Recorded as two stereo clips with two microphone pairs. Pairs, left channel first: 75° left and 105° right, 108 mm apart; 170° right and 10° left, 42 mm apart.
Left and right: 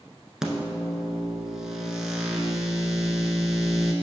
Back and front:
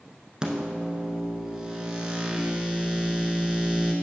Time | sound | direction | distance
0.4 | a microwave | 20° right | 0.9 m